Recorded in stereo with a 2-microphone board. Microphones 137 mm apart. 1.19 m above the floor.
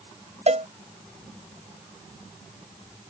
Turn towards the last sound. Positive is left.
turn(degrees=-55)  # may be behind; listen again after turning